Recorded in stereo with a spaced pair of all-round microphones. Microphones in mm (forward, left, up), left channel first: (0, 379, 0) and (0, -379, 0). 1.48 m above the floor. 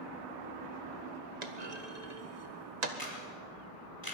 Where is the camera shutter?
30° left (ahead or behind), 5 m.